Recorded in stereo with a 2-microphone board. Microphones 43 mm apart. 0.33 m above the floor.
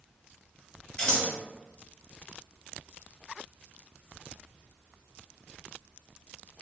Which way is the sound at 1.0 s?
25° left (ahead or behind).